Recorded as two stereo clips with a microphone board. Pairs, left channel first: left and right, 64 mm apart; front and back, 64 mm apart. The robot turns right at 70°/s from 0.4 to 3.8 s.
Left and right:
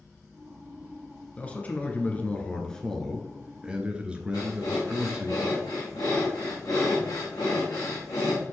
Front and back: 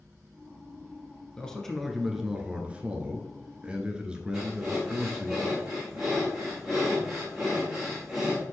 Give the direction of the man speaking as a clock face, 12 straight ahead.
10 o'clock.